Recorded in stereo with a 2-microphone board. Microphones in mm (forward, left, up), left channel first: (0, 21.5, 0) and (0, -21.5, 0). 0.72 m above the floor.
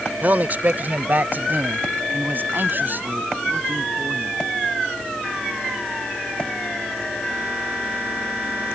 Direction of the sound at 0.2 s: 40° right (ahead or behind).